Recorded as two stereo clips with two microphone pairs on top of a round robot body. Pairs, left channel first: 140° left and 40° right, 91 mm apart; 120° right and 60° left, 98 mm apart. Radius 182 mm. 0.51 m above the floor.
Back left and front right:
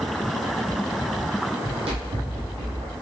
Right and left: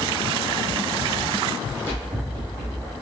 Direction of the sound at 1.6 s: 50° right.